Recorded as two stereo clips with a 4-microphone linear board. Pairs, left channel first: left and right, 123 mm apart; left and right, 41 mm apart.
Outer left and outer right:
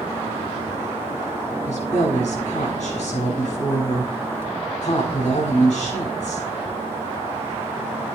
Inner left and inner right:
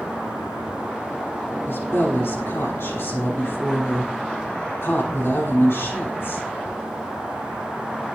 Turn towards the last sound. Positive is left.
turn(degrees=80)